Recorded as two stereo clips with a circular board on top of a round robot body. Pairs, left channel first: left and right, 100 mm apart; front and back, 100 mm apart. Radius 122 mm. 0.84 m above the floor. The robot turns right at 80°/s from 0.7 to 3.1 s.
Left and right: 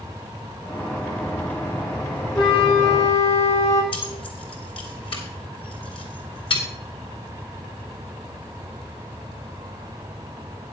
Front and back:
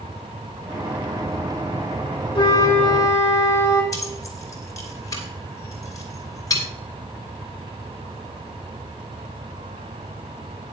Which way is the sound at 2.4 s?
40° left.